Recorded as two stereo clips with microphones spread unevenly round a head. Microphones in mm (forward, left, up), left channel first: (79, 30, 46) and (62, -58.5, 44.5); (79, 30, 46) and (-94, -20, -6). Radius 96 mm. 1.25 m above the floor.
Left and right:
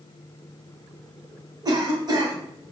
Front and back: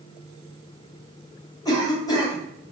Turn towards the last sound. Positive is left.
turn(degrees=-55)